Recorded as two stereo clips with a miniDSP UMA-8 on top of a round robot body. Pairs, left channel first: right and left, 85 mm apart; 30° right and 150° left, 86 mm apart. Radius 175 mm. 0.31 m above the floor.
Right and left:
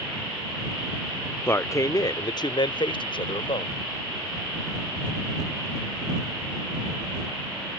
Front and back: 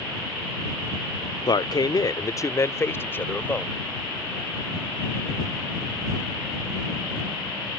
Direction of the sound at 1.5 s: 35° right.